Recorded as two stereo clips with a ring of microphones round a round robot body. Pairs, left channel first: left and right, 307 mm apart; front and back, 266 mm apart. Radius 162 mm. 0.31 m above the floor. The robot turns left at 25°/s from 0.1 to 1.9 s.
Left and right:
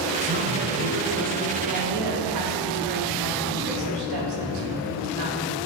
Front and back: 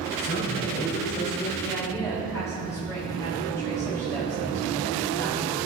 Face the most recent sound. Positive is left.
turn(degrees=-80)